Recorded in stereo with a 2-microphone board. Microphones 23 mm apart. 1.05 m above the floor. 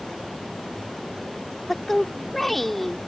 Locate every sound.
1.7 s a woman speaking: 10° left (ahead or behind)